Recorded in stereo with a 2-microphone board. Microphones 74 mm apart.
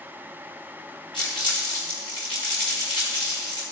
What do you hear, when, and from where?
1.1 s crumpling: 80° left, 4 m